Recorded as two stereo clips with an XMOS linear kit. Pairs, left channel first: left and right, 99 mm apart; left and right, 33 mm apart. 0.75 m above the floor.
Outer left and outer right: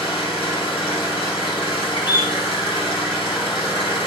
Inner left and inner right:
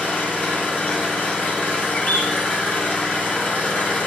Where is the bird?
50° left (ahead or behind), 1.3 m.